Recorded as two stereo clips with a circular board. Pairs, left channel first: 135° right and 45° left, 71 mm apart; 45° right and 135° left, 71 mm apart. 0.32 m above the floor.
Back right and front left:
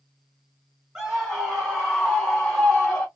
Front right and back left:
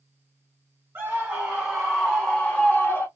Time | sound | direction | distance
0.9 | a scream | 125° left | 1.6 m